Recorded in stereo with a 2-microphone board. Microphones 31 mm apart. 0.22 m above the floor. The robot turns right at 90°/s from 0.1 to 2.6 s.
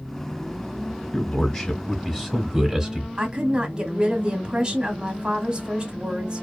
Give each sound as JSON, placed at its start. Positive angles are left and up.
{"t": 1.1, "sound": "a man speaking", "side_deg": 20, "distance_m": 1.1}
{"t": 3.2, "sound": "a woman speaking", "side_deg": -30, "distance_m": 1.1}